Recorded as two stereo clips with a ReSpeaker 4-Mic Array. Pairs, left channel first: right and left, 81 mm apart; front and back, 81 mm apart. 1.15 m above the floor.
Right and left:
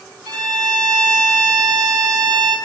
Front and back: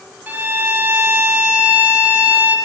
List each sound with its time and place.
0.3 s a violin: 115° left, 1.6 m